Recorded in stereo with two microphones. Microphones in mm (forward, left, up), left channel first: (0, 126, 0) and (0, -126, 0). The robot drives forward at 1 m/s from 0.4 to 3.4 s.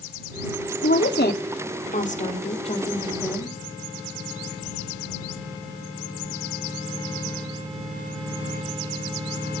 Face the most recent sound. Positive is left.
turn(degrees=20)  # may be behind; listen again after turning